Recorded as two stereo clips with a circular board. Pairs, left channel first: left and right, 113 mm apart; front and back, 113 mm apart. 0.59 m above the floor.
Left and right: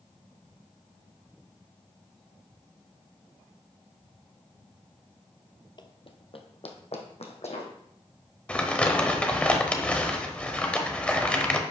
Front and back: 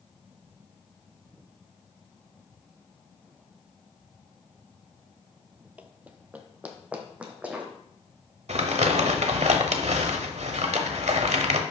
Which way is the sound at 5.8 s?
110° left.